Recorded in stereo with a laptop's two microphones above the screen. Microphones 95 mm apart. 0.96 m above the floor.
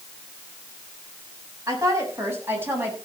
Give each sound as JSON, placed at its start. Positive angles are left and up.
{"t": 1.7, "sound": "a woman speaking", "side_deg": -35, "distance_m": 6.5}